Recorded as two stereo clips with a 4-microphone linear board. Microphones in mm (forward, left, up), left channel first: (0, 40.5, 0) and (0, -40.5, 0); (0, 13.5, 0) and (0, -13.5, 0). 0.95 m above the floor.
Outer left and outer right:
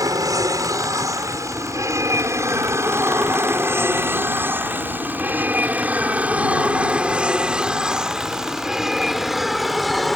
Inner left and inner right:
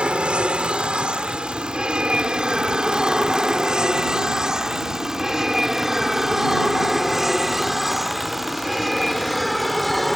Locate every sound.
0.0 s an aircraft: 50° right (ahead or behind); by 10.2 s centre (ahead or behind)